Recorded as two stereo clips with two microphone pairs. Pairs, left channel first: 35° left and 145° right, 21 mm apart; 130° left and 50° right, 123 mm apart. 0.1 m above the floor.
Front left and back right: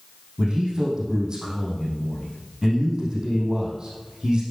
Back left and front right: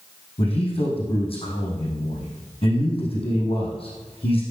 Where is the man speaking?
165° left, 4.5 m.